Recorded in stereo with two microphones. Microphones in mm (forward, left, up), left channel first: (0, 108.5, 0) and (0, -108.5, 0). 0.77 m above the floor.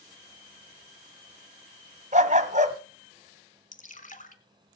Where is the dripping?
35° left (ahead or behind), 1.4 m.